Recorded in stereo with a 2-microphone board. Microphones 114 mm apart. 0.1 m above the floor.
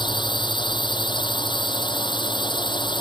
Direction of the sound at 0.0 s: 45° left (ahead or behind).